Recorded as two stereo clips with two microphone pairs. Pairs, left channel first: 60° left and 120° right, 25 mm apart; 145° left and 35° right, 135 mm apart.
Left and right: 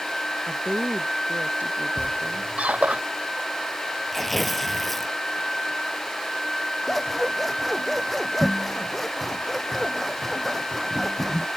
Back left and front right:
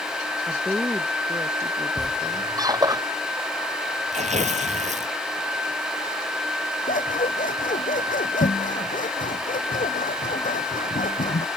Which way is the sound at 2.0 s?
100° right.